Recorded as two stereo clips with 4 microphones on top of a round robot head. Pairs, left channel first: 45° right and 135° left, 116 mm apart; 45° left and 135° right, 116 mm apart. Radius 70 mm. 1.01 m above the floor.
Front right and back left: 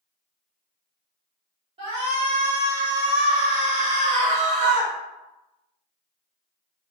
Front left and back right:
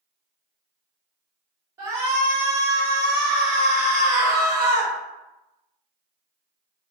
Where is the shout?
165° left, 1.5 m.